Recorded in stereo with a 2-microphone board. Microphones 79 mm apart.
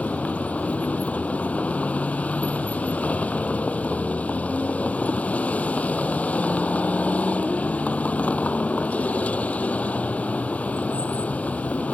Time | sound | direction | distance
0.0 | a vehicle | 15° left (ahead or behind) | ?